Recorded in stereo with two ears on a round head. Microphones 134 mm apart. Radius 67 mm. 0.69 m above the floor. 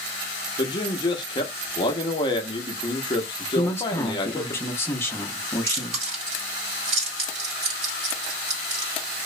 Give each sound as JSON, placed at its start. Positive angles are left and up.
{"t": 0.6, "sound": "a man speaking", "side_deg": 30, "distance_m": 0.5}
{"t": 3.5, "sound": "a man speaking", "side_deg": 15, "distance_m": 0.5}
{"t": 5.7, "sound": "chewing", "side_deg": -45, "distance_m": 1.5}